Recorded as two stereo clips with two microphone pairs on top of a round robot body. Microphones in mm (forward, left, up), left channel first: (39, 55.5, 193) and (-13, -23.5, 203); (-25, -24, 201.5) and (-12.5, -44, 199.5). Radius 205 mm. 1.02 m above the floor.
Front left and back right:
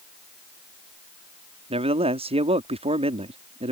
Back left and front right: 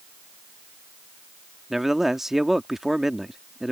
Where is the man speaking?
130° right.